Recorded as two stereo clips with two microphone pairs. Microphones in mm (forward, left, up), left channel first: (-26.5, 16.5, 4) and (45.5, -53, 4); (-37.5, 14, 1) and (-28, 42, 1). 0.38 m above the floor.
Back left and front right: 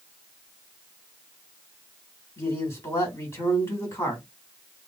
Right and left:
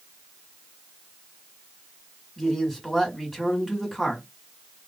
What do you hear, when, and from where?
2.4 s a man speaking: 160° left, 1.5 m